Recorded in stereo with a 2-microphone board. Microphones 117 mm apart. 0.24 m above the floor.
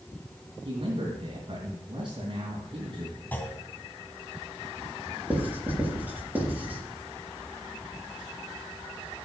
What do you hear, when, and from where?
0.7 s a man speaking: 45° right (ahead or behind), 2.5 m
3.3 s a clunk: 15° left (ahead or behind), 2 m
5.3 s writing: 15° right (ahead or behind), 5 m